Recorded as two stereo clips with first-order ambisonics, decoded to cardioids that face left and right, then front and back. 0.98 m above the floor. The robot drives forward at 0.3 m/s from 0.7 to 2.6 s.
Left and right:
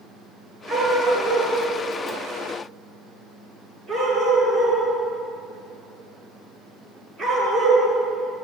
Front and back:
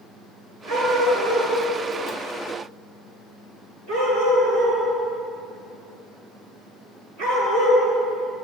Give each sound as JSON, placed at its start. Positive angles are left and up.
{"t": 0.7, "sound": "a dog barking", "azimuth_deg": 170, "distance_m": 5.5}